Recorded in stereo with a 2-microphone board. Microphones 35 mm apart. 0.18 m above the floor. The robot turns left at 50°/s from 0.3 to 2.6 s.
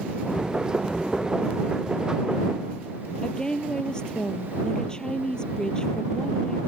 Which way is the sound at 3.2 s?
25° left (ahead or behind).